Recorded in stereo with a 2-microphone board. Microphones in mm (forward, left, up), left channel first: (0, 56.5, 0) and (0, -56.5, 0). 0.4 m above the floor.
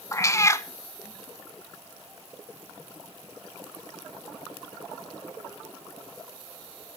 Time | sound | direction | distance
0.1 | a cat meowing | 25° left (ahead or behind) | 0.7 m